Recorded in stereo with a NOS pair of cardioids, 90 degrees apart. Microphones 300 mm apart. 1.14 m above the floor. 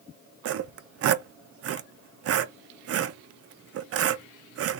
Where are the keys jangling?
I don't hear keys jangling.